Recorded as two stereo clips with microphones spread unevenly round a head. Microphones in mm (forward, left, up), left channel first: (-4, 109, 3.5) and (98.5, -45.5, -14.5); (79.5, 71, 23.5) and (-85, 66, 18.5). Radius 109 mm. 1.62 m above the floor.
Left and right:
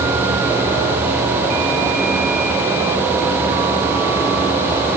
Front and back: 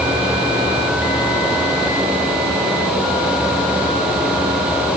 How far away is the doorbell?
No doorbell in this recording.